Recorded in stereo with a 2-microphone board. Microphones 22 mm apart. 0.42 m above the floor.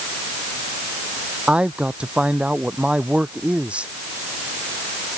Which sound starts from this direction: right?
A man speaking, at 1.5 s.